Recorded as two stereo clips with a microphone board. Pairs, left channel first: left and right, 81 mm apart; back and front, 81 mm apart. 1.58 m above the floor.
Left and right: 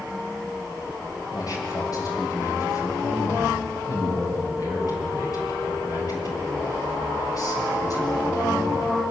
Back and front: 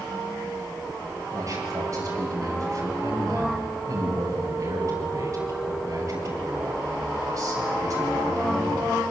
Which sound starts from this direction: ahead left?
A man speaking, at 1.3 s.